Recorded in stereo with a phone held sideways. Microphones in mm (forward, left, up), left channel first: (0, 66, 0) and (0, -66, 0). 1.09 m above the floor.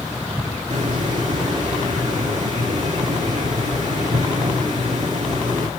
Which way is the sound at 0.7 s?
65° right (ahead or behind).